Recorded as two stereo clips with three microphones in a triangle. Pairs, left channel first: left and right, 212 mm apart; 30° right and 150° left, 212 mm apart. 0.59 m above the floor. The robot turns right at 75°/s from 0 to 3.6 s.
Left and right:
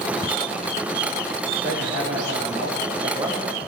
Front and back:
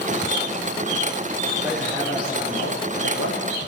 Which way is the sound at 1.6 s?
140° right.